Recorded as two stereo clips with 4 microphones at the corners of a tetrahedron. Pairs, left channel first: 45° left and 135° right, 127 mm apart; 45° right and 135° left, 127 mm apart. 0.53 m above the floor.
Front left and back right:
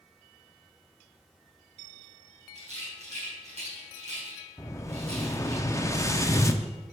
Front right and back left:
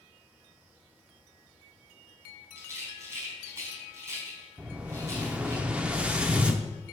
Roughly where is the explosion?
Left.